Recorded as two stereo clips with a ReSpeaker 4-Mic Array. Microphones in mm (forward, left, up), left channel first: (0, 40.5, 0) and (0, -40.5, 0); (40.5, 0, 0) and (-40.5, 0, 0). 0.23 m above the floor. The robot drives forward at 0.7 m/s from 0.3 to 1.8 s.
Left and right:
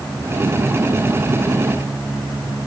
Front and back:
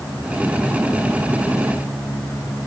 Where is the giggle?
No giggle in this recording.